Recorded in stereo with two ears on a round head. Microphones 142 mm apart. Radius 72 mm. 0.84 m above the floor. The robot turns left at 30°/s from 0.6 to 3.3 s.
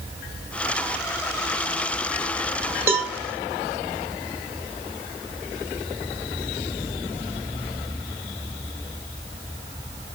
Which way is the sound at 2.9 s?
20° right (ahead or behind).